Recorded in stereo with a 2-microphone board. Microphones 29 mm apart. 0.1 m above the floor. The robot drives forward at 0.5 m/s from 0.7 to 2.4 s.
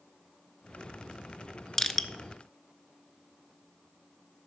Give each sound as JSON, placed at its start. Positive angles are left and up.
{"t": 1.8, "sound": "crushing", "side_deg": 15, "distance_m": 0.6}